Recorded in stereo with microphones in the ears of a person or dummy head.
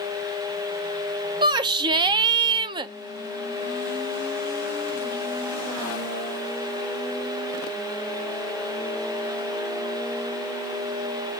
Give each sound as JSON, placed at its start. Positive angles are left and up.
{"t": 1.4, "sound": "a shout", "side_deg": -20, "distance_m": 0.5}